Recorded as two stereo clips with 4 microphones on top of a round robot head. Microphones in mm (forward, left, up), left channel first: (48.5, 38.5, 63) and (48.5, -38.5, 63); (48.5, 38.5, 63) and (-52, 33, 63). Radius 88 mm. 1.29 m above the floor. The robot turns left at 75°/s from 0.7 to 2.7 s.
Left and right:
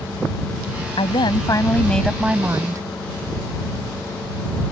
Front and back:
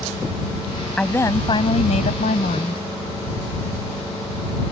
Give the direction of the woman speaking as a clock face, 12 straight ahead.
9 o'clock.